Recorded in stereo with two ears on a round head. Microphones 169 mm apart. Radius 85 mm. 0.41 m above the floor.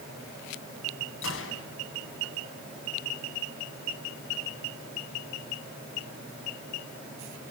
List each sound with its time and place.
1.2 s a gunshot: 70° left (ahead or behind), 3.5 m